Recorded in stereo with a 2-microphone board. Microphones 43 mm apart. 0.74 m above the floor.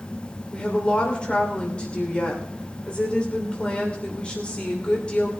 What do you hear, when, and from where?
0.5 s a woman speaking: 25° left (ahead or behind), 2.5 m